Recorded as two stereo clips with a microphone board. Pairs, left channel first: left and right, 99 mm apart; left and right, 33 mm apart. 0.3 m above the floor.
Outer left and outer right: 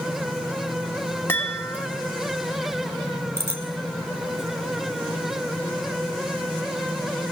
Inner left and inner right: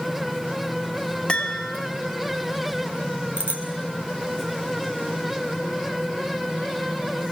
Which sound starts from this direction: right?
A bicycle bell, at 3.4 s.